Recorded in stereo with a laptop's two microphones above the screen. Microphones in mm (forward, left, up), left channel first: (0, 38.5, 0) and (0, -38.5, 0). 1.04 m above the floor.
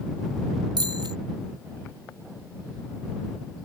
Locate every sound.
0.8 s a bicycle bell: 75° right (ahead or behind)